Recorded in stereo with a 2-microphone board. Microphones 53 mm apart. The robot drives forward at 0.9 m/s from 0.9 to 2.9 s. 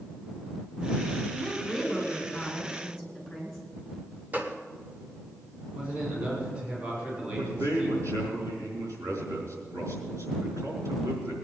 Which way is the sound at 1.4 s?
5° left (ahead or behind).